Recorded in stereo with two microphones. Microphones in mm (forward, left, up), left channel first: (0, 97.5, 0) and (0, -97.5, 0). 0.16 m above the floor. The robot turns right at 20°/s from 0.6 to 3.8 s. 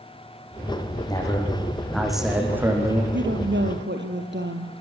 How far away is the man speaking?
About 7 m.